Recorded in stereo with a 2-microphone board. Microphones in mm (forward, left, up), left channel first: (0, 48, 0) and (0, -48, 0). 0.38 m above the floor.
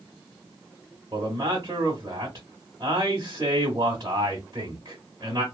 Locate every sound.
1.1 s a man speaking: 45° right (ahead or behind), 1.1 m